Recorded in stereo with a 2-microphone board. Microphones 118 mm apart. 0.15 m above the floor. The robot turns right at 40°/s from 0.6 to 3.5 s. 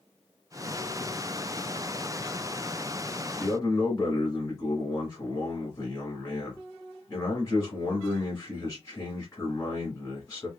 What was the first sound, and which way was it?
A man speaking, 25° left (ahead or behind).